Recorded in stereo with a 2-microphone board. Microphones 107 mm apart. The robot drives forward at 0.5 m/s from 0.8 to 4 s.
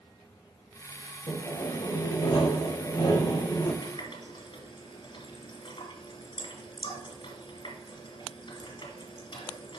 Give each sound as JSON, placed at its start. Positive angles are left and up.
{"t": 1.3, "sound": "sawing", "side_deg": 75, "distance_m": 4.0}
{"t": 3.8, "sound": "a running tap", "side_deg": 55, "distance_m": 1.8}